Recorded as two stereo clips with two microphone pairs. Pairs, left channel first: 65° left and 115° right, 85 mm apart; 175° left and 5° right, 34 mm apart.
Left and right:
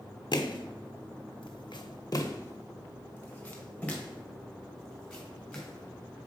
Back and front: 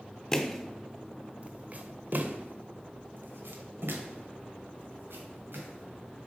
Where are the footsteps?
95° left, 1.1 m; by 6.3 s 20° right, 3.5 m.